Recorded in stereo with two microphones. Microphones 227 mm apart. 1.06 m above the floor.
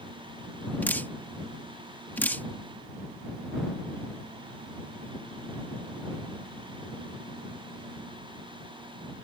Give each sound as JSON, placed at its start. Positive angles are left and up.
{"t": 0.8, "sound": "dripping", "side_deg": 10}